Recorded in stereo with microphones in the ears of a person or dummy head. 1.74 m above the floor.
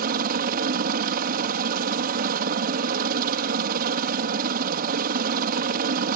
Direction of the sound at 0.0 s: 50° right (ahead or behind).